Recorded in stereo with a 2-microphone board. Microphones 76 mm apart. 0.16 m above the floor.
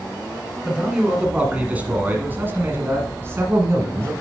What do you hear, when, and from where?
0.7 s a man speaking: 10° right (ahead or behind), 1.9 m; by 4.1 s 35° right (ahead or behind), 1.8 m